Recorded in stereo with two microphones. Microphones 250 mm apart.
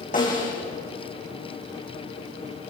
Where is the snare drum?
35° left (ahead or behind), 8 m.